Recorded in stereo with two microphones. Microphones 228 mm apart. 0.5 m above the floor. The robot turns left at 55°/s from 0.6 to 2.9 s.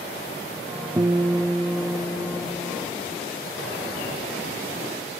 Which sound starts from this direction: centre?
A guitar, at 1.0 s.